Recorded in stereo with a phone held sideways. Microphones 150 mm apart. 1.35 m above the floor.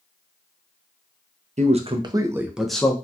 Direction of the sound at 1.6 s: 50° right (ahead or behind).